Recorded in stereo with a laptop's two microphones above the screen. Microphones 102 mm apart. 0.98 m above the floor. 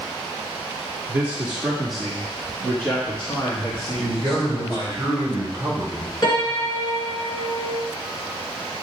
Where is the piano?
45° left (ahead or behind), 2.5 m.